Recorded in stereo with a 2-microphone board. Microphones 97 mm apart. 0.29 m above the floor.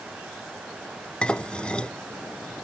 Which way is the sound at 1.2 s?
10° left (ahead or behind).